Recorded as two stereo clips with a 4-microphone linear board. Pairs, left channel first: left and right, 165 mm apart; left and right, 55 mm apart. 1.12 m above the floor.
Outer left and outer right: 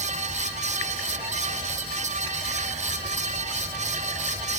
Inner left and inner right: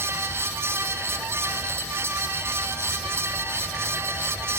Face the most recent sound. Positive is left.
No sound to turn to.